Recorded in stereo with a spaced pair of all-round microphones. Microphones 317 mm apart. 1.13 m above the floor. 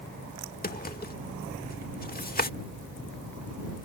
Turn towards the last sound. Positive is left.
turn(degrees=30)  # may be behind; listen again after turning